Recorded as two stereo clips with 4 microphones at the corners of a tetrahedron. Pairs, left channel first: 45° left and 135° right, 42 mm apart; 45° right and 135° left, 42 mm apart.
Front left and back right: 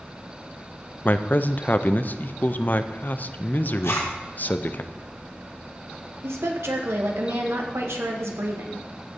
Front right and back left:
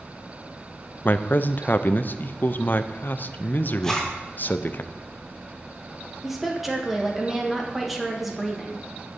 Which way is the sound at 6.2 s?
135° right.